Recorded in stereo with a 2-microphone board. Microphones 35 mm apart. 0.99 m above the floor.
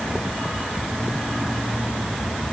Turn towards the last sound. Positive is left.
No sound to turn to.